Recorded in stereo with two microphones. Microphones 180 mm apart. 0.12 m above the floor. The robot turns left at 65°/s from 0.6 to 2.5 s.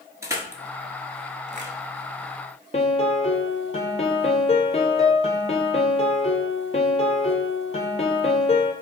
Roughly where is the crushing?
Centre.